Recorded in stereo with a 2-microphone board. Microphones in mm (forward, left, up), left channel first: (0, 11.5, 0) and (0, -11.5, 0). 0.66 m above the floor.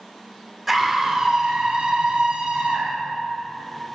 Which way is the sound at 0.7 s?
15° right (ahead or behind).